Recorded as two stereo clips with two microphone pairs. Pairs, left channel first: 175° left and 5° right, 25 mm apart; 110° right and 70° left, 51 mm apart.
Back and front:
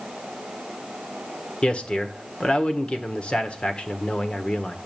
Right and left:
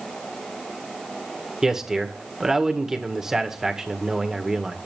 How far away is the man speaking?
About 1.6 m.